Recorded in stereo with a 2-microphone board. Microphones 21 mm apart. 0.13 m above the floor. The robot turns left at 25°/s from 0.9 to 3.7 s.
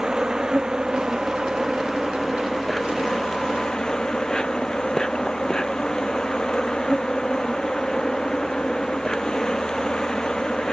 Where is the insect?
145° right; by 10.7 s 145° left.